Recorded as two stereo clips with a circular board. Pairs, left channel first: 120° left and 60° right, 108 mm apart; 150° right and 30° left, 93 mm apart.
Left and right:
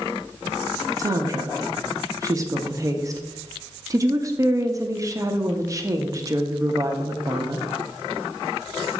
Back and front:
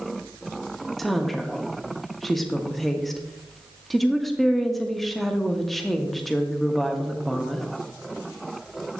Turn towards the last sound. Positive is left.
turn(degrees=-65)